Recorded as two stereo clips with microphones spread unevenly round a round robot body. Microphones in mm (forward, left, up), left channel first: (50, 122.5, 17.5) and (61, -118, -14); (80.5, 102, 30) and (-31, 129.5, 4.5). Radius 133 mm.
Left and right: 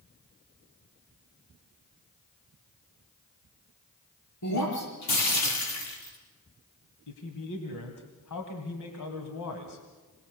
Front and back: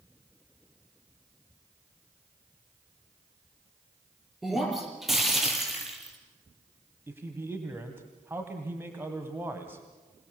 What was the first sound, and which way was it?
Breaking glass, 80° left.